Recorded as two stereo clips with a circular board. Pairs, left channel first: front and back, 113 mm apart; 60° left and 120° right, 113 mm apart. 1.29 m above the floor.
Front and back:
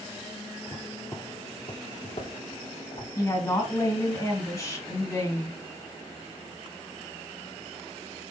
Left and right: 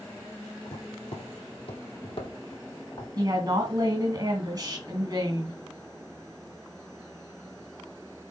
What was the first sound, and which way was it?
Footsteps, 70° left.